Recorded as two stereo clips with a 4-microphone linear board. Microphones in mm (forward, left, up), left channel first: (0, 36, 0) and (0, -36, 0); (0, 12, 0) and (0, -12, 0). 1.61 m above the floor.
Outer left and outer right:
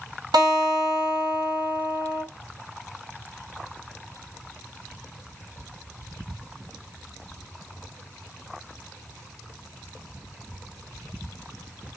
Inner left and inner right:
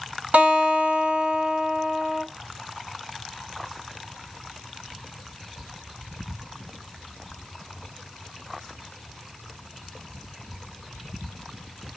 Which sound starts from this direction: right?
A guitar, at 0.3 s.